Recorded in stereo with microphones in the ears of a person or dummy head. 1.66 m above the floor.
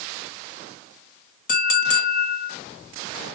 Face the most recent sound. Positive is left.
turn(degrees=50)  # may be behind; listen again after turning